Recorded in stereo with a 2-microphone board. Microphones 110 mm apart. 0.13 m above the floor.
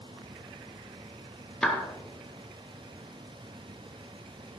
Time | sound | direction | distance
1.6 | a clap | 10° left (ahead or behind) | 1.8 m